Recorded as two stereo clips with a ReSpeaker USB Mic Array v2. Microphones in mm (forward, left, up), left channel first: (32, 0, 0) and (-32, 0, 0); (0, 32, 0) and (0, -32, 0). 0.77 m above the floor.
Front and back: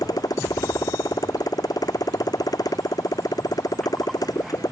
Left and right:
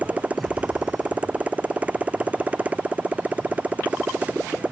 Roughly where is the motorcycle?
Ahead right.